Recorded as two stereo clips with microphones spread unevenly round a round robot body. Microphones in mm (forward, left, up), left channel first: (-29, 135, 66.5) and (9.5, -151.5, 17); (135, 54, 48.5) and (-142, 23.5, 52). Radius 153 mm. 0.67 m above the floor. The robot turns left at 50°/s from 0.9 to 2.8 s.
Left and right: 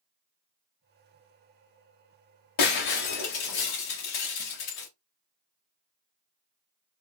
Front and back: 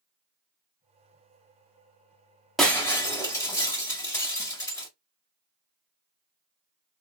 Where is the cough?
No cough in this recording.